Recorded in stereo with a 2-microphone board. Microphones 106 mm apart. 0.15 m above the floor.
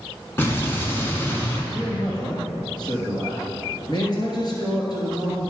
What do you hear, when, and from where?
0.4 s an explosion: 20° left (ahead or behind), 1.4 m
1.7 s a man speaking: 45° left (ahead or behind), 2.5 m